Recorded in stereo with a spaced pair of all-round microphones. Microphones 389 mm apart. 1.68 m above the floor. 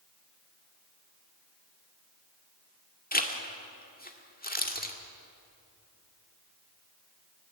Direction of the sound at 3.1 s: 25° left (ahead or behind).